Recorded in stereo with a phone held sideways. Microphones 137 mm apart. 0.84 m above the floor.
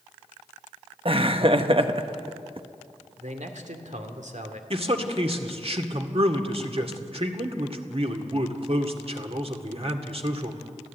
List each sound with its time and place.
1.1 s laughter: 45° right (ahead or behind), 1.4 m
3.2 s a man speaking: 65° right (ahead or behind), 2.5 m
4.7 s a man speaking: 50° right (ahead or behind), 1.9 m